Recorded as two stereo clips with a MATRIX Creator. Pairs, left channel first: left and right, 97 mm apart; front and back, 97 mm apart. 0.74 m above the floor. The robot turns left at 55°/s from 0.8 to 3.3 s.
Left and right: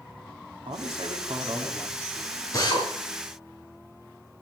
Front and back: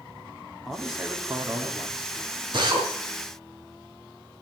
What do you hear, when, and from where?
0.7 s a man speaking: 85° right, 1.9 m; by 2.2 s 160° right, 1.9 m
2.5 s a drill: 145° left, 5 m; by 2.9 s 130° left, 5 m